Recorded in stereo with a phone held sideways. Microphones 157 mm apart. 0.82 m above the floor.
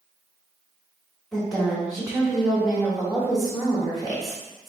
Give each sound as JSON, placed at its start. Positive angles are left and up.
{"t": 1.3, "sound": "a woman speaking", "side_deg": 0, "distance_m": 1.1}